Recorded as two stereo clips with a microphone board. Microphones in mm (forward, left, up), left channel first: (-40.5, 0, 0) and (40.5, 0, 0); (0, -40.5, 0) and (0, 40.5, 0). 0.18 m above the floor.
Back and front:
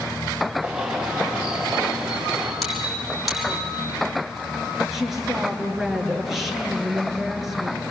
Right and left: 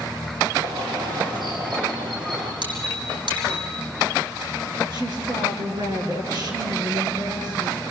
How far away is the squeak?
About 6 m.